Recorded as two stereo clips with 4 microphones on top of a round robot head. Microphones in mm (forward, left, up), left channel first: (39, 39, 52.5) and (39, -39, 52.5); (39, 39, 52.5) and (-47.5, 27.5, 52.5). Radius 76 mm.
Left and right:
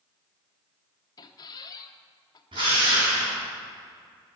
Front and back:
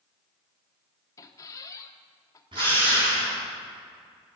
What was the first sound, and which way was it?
A squeak, 55° left.